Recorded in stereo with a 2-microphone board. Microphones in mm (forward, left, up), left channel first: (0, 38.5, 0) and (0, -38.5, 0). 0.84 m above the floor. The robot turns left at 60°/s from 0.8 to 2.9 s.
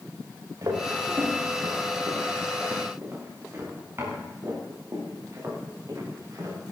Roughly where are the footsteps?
Right.